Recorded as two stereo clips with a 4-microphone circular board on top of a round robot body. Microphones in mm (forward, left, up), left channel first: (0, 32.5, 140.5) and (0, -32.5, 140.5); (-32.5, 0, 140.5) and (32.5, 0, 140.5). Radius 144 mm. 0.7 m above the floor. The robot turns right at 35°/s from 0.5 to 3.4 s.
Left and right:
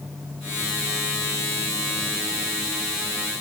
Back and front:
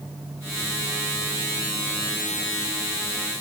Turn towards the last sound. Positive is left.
No sound to turn to.